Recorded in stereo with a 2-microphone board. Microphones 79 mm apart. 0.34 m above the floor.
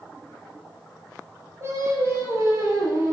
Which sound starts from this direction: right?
Singing, at 1.6 s.